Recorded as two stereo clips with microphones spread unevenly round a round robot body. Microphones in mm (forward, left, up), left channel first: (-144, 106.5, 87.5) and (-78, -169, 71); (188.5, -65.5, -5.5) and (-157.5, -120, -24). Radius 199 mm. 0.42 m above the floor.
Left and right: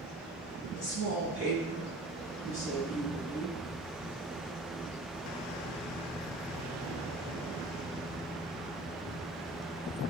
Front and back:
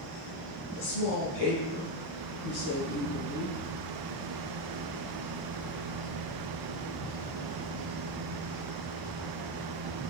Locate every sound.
0.8 s a woman speaking: 35° left, 4.5 m